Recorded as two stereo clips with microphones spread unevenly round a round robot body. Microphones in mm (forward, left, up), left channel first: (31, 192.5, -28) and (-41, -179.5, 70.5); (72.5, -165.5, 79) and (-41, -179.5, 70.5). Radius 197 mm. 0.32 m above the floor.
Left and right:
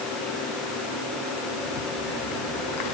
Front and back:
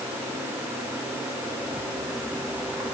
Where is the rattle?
110° left, 3.5 m.